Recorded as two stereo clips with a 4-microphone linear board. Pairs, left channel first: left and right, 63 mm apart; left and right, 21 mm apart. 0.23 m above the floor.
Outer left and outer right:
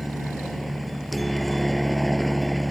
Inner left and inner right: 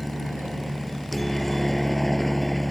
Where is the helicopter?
Centre (ahead or behind).